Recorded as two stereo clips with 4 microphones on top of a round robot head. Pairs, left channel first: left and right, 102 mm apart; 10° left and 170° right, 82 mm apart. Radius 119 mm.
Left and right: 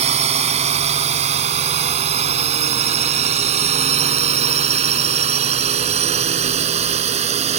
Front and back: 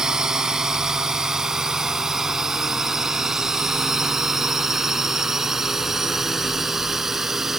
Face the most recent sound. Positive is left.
turn(degrees=-80)